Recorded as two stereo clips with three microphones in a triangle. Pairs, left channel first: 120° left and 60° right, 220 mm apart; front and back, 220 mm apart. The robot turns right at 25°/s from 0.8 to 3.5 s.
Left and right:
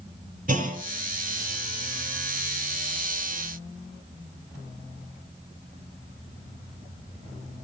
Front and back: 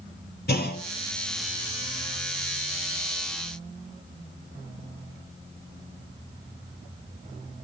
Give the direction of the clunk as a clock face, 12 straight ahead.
1 o'clock.